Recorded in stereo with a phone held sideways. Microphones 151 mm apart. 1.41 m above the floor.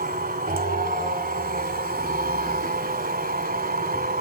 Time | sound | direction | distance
0.0 | a machine running | 70° right (ahead or behind) | 2.5 m